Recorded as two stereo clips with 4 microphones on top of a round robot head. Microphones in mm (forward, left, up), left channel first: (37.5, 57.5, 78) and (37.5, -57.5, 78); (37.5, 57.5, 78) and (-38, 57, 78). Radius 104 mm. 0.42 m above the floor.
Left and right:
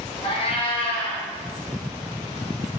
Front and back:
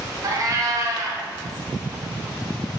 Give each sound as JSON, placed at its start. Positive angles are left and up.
{"t": 0.2, "sound": "a cat meowing", "azimuth_deg": 140, "distance_m": 2.5}